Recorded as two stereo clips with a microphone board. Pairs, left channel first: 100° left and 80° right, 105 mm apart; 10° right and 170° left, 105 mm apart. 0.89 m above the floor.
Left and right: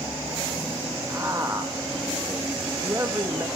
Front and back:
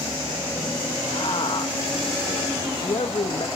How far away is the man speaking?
About 1.1 m.